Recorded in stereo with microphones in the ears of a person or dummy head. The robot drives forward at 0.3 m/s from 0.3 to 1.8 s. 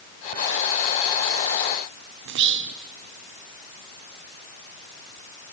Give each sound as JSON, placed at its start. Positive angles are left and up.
{"t": 2.2, "sound": "whispering", "side_deg": -65, "distance_m": 0.6}